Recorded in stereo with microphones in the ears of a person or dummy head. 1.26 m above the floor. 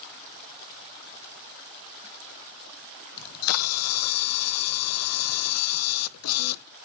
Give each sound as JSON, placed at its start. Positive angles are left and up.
{"t": 3.2, "sound": "a camera shutter", "side_deg": 90, "distance_m": 0.5}